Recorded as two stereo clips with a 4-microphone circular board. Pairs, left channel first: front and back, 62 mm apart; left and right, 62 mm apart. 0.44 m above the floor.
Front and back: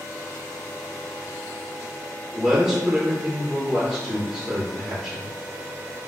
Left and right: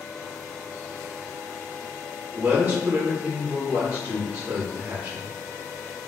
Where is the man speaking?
110° right, 0.8 m.